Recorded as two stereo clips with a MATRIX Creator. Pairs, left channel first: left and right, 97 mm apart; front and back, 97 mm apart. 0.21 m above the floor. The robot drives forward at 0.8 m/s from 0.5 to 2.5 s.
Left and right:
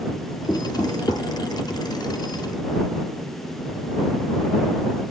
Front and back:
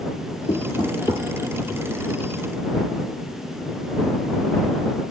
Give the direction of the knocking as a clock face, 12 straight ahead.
11 o'clock.